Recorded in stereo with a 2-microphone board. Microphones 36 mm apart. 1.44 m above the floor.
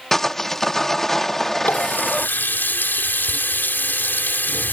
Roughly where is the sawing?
Centre.